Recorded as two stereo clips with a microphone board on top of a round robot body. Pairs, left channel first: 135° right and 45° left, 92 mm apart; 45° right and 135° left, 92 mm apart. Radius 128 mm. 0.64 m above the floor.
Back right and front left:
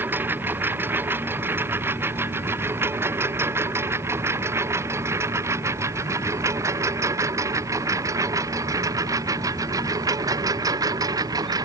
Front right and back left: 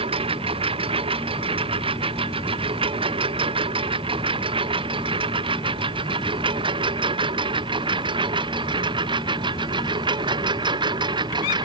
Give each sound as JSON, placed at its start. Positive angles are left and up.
{"t": 0.0, "sound": "a lawn mower", "azimuth_deg": 115}